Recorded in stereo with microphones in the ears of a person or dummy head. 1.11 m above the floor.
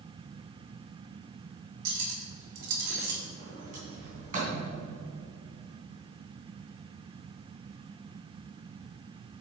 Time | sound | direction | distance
1.9 | cutlery clinking | 65° right (ahead or behind) | 1.4 m
3.4 | a sliding door | 50° right (ahead or behind) | 3 m